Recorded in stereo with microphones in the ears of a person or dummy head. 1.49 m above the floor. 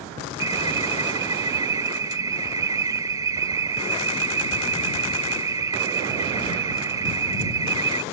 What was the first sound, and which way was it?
An alarm, 20° right (ahead or behind).